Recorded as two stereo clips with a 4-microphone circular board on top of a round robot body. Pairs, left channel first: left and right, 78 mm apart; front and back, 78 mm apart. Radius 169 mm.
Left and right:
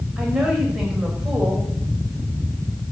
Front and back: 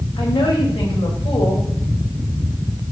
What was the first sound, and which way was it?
A woman speaking, 5° right.